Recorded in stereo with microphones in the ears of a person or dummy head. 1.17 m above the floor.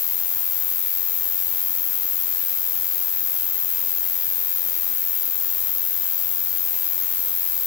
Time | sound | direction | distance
0.0 | an insect | 5° left (ahead or behind) | ?